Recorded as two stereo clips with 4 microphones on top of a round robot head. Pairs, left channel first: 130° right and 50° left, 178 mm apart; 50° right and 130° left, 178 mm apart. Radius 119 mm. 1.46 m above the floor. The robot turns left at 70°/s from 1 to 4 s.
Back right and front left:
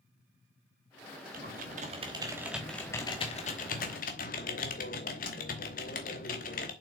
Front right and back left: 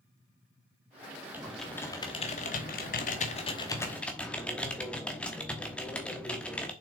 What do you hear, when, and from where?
1.3 s typing on a keyboard: 55° left, 1.0 m; by 6.7 s 135° right, 1.0 m